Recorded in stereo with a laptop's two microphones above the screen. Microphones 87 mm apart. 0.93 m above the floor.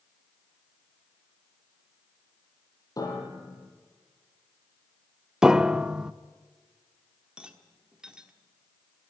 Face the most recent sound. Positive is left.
turn(degrees=-10)  # may be behind; listen again after turning